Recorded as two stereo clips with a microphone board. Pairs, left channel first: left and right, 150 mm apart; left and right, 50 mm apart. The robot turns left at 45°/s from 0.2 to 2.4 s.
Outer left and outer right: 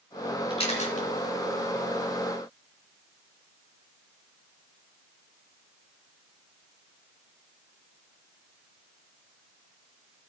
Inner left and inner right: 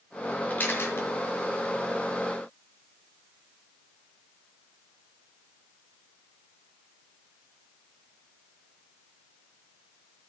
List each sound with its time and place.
0.5 s a camera shutter: 35° left (ahead or behind), 2.5 m; by 1.0 s 60° left (ahead or behind), 2.5 m